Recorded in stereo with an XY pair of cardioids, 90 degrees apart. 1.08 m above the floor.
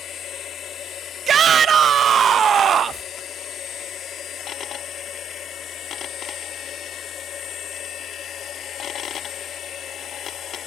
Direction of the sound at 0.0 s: 65° left.